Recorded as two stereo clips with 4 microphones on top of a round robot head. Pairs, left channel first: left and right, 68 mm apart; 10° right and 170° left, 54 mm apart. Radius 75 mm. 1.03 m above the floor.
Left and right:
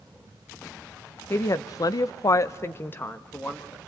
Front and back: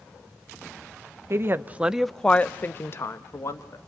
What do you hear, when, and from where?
1.3 s a woman speaking: 135° left, 1.0 m; by 3.8 s 15° left, 2 m